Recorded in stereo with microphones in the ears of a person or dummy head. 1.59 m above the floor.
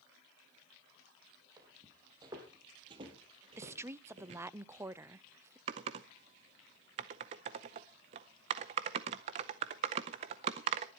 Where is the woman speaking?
15° right (ahead or behind), 0.6 m.